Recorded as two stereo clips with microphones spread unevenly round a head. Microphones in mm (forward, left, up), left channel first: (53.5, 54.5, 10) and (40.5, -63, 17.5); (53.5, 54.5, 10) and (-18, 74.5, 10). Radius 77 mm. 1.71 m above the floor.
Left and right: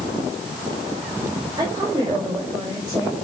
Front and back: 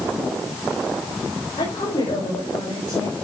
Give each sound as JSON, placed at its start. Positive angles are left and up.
{"t": 1.6, "sound": "a woman speaking", "azimuth_deg": -40, "distance_m": 7.5}